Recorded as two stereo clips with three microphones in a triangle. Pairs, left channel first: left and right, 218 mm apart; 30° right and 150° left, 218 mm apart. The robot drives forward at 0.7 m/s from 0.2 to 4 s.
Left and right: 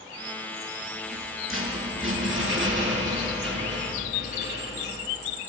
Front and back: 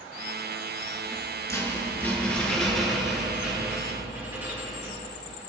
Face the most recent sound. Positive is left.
turn(degrees=-130)